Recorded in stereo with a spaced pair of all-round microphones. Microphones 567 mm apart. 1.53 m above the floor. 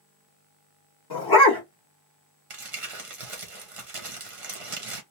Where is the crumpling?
70° right (ahead or behind), 0.9 m.